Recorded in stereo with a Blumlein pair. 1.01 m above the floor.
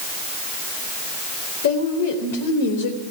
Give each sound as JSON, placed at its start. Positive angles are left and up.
{"t": 1.6, "sound": "a woman speaking", "azimuth_deg": 55, "distance_m": 4.0}